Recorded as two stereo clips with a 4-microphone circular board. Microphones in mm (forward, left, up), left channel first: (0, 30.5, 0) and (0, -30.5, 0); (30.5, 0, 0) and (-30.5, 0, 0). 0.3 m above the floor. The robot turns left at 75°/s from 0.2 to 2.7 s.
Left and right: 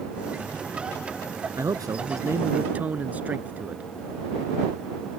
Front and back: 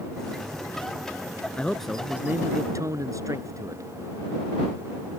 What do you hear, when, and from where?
1.6 s a man speaking: 65° right; by 3.8 s 155° right